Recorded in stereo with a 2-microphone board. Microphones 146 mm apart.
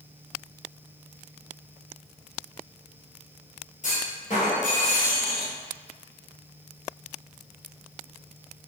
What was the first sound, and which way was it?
A clunk, 55° left (ahead or behind).